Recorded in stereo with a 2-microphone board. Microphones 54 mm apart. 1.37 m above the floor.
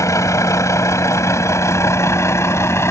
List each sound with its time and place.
0.0 s a vehicle: 75° left (ahead or behind); by 2.9 s 60° left (ahead or behind)